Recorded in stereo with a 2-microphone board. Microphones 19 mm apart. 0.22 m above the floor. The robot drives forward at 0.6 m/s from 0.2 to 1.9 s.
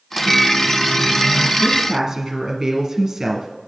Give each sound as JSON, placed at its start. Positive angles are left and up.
{"t": 0.1, "sound": "a microwave", "side_deg": 5, "distance_m": 1.9}
{"t": 1.6, "sound": "a woman speaking", "side_deg": -20, "distance_m": 2.0}